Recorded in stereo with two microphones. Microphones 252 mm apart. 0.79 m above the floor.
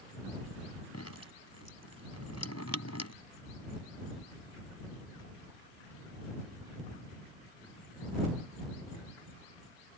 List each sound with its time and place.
0.9 s dripping: 85° left